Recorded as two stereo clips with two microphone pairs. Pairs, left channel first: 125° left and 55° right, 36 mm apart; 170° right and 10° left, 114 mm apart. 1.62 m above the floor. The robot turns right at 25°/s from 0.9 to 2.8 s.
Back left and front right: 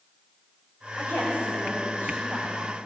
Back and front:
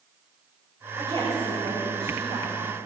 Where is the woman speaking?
125° left, 5.5 m; by 2.6 s 165° left, 5.5 m.